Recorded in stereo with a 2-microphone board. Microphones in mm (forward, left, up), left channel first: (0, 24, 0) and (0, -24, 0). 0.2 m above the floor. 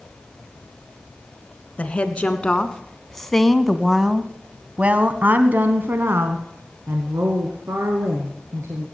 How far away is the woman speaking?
About 1.8 m.